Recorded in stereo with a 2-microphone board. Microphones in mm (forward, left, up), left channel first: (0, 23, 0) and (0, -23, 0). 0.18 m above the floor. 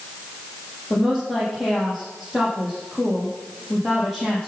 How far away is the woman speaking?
About 6 m.